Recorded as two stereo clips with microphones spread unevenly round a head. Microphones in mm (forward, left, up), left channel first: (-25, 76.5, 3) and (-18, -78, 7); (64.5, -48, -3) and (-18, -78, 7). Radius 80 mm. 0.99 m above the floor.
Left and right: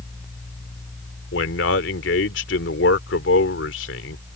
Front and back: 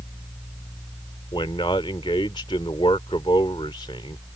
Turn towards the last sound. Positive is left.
turn(degrees=80)